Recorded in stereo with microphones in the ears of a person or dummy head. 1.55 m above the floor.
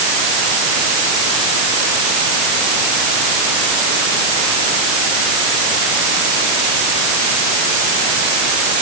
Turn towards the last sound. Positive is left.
No sound to turn to.